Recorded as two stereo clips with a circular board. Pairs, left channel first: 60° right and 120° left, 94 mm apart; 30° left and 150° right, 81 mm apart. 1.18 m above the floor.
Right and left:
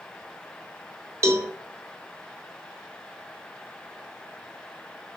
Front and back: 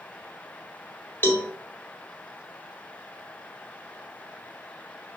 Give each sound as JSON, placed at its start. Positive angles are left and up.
{"t": 1.2, "sound": "a cowbell", "azimuth_deg": 80, "distance_m": 1.2}